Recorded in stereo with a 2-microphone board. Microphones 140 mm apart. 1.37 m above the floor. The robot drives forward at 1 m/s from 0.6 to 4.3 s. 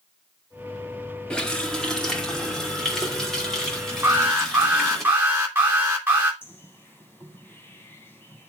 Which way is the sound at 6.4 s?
15° left (ahead or behind).